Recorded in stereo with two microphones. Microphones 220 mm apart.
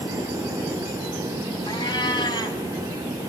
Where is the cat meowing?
20° left (ahead or behind), 3 m.